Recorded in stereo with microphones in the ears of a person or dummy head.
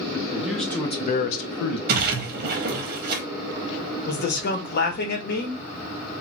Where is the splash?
55° right (ahead or behind), 0.7 m.